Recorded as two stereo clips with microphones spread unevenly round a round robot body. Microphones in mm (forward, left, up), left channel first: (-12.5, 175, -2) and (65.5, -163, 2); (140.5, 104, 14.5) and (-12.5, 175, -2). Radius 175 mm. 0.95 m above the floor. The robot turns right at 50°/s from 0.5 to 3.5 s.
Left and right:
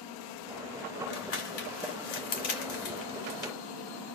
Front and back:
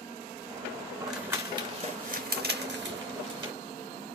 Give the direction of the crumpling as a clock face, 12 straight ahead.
10 o'clock.